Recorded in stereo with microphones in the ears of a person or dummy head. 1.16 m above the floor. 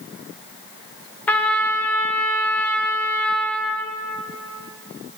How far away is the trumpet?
About 0.9 m.